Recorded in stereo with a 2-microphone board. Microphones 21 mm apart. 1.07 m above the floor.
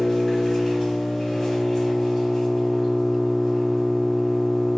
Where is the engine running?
25° left (ahead or behind), 3.5 m.